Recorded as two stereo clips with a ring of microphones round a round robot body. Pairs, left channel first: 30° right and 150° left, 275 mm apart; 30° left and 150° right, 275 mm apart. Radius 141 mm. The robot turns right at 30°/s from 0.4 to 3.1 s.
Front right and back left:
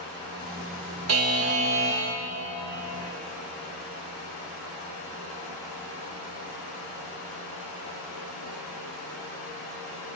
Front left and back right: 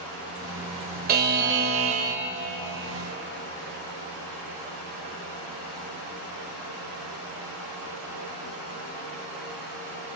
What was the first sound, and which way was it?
A buzzer, 160° left.